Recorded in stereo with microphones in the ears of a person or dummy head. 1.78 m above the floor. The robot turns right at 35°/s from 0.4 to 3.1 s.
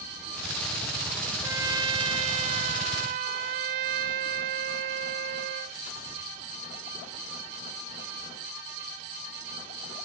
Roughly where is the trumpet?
Behind.